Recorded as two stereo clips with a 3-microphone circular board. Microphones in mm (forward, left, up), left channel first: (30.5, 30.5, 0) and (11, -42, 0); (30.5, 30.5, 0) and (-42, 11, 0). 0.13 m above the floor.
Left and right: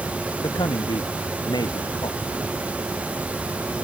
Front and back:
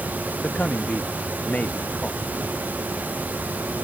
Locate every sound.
0.4 s a man speaking: 85° left